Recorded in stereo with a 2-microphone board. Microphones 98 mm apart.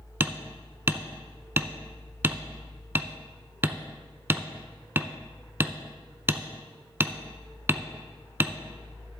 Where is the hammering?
20° right (ahead or behind), 0.5 m.